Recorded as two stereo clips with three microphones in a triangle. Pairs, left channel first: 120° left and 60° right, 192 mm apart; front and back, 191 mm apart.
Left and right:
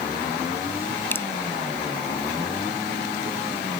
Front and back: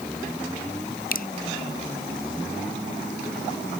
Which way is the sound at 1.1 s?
40° left.